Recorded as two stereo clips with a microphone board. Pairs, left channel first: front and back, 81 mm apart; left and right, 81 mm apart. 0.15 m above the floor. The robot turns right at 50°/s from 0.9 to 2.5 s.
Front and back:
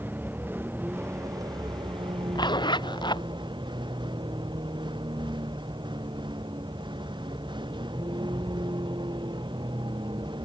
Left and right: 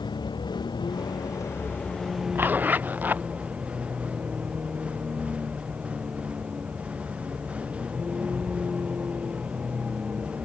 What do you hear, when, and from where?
0.0 s a vehicle: 115° left; by 10.4 s 165° right
2.4 s a zipper: 30° right; by 3.3 s 20° right